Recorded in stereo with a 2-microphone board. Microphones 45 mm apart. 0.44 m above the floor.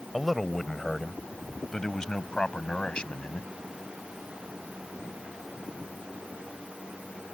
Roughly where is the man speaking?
Centre.